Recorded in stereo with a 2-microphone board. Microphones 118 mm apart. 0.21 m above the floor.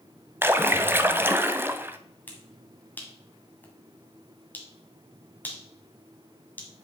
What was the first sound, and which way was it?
A splash, 20° right (ahead or behind).